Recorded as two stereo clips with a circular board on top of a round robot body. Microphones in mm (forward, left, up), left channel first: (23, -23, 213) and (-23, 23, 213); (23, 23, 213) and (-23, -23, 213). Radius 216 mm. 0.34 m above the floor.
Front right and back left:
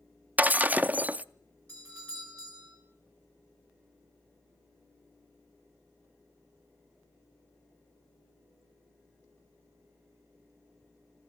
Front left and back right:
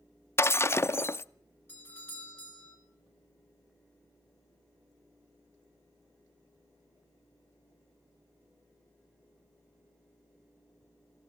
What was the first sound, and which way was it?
Breaking glass, 80° left.